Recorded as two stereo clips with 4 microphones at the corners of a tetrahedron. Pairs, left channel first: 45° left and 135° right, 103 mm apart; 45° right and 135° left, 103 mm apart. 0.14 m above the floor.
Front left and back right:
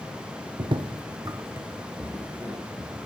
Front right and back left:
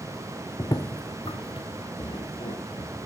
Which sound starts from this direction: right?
Footsteps, at 0.6 s.